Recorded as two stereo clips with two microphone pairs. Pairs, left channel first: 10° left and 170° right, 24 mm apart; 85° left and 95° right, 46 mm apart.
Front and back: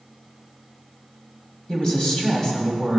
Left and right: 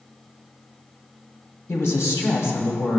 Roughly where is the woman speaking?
Ahead left.